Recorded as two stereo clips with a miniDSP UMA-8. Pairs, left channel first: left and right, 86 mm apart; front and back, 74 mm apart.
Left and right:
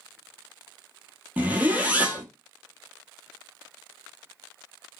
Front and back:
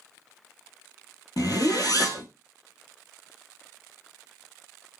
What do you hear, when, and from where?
1.4 s a zipper: 20° right, 0.8 m